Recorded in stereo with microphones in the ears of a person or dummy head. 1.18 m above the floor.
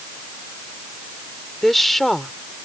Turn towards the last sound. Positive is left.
turn(degrees=0)  # may be behind; listen again after turning